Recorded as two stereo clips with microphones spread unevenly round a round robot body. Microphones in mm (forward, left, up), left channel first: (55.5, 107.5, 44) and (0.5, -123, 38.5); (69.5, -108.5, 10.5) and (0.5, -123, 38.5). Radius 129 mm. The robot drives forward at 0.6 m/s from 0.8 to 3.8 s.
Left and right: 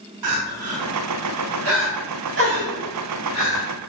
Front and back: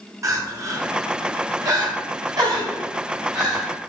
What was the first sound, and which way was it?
Crying, 125° right.